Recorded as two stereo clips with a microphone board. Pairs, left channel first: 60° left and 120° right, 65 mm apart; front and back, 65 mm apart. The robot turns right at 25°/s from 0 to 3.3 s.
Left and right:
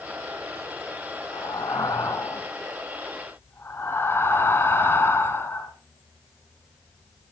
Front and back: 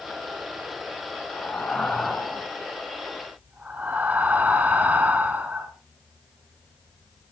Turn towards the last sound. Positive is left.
turn(degrees=115)